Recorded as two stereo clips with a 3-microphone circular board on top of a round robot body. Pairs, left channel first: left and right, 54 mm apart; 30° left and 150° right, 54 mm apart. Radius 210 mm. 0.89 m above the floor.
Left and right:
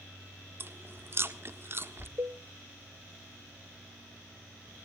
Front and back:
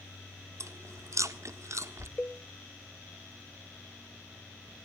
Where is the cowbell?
45° right, 0.8 m.